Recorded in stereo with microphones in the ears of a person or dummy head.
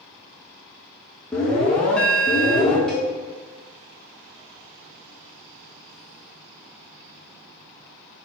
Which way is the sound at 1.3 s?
Centre (ahead or behind).